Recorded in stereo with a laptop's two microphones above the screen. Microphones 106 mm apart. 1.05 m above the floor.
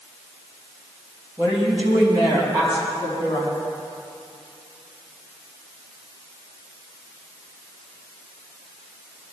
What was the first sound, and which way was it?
A woman speaking, 20° right (ahead or behind).